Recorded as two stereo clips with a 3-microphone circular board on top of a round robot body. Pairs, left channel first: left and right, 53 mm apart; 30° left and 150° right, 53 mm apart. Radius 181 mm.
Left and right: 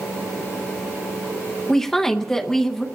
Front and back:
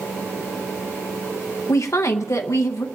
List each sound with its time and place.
1.7 s a woman speaking: 10° left, 0.8 m